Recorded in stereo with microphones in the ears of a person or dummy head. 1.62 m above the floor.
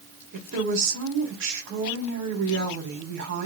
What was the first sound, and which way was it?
A woman speaking, 65° right (ahead or behind).